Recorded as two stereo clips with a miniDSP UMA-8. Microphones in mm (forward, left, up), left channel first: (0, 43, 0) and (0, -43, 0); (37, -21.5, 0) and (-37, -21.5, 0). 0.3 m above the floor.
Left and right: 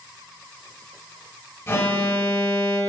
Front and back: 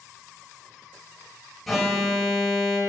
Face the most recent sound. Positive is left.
turn(degrees=85)